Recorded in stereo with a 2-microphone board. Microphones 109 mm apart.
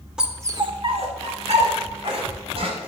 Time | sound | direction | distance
0.2 | a dog barking | 5° right (ahead or behind) | 0.9 m